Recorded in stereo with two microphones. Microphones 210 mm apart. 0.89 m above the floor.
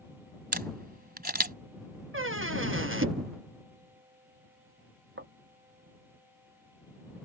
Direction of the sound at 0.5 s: 45° right (ahead or behind).